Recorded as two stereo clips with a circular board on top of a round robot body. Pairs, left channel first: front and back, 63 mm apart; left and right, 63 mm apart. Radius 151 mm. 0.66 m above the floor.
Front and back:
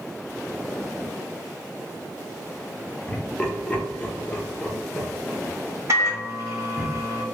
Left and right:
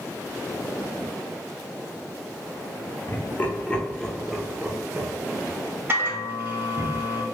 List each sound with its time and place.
3.1 s laughter: 65° left, 1.1 m; by 6.9 s 80° right, 1.7 m
5.9 s a microwave: 140° right, 1.8 m